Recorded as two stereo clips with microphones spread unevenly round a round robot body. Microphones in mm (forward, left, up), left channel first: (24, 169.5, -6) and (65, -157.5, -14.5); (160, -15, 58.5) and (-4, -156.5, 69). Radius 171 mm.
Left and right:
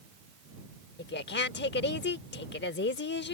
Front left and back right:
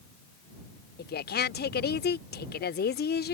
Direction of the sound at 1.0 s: 50° left.